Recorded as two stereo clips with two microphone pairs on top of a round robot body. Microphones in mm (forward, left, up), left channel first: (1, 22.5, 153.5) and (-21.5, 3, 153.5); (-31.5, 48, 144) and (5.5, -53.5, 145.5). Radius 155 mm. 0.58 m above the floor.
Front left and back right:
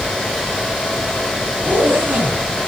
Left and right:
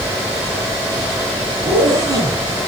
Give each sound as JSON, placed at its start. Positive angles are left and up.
{"t": 1.6, "sound": "a zipper", "azimuth_deg": -130, "distance_m": 2.5}